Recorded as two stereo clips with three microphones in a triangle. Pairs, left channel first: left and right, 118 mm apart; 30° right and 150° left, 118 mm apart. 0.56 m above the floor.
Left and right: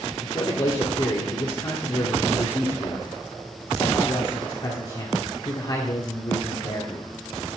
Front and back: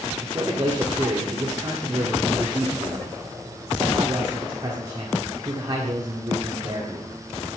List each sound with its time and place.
0.2 s a man speaking: 120° left, 1.6 m